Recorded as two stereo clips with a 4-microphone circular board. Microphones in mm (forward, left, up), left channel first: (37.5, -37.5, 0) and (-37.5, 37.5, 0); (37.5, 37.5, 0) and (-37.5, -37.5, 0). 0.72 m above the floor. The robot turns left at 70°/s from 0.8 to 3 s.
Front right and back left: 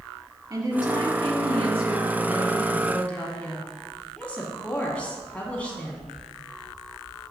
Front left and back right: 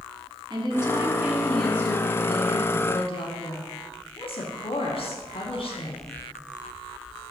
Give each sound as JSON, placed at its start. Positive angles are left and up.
{"t": 0.5, "sound": "a woman speaking", "azimuth_deg": -175, "distance_m": 1.3}